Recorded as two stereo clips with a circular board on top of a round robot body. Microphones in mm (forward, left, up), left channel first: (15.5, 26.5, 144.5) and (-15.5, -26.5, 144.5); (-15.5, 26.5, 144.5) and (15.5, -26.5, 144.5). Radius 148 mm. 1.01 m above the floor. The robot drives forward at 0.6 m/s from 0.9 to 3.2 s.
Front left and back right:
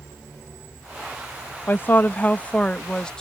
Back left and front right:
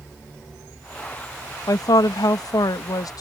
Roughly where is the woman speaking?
Behind left.